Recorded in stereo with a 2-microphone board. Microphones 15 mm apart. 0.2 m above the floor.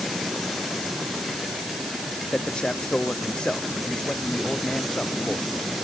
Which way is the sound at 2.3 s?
75° left (ahead or behind).